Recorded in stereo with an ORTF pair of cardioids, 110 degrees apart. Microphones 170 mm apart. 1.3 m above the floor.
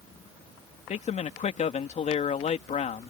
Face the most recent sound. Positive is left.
turn(degrees=45)